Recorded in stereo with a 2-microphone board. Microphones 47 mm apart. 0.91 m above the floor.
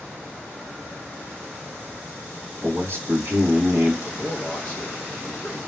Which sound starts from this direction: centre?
A man speaking, at 4.0 s.